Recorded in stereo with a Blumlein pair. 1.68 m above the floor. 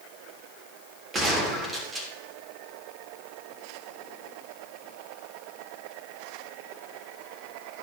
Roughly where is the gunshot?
Ahead.